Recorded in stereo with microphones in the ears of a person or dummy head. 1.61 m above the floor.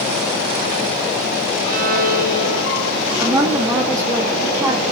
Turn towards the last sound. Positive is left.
turn(degrees=-15)  # may be behind; listen again after turning